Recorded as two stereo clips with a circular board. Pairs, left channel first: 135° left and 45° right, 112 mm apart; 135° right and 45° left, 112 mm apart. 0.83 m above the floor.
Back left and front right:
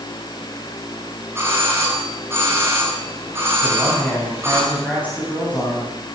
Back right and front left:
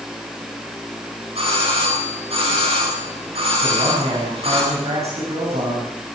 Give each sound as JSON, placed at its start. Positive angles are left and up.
{"t": 1.4, "sound": "a doorbell", "azimuth_deg": 20, "distance_m": 9.0}
{"t": 3.6, "sound": "a man speaking", "azimuth_deg": 60, "distance_m": 7.5}